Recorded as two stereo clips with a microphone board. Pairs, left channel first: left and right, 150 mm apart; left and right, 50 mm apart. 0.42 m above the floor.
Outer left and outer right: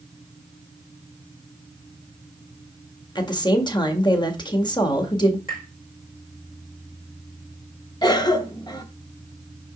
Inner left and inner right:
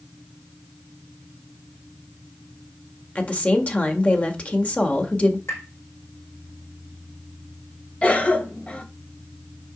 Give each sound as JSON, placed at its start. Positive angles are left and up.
{"t": 3.1, "sound": "a woman speaking", "side_deg": 30, "distance_m": 1.7}
{"t": 5.5, "sound": "tapping", "side_deg": 65, "distance_m": 4.5}
{"t": 8.0, "sound": "a cough", "side_deg": 30, "distance_m": 1.6}